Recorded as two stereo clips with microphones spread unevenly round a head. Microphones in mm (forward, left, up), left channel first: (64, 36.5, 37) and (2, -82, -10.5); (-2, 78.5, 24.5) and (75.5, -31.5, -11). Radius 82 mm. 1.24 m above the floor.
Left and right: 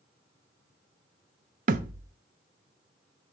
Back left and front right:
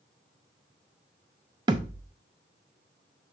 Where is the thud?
120° right, 0.6 m.